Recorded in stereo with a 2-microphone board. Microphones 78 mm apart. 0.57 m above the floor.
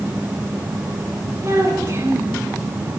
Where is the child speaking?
45° right (ahead or behind), 4.5 m.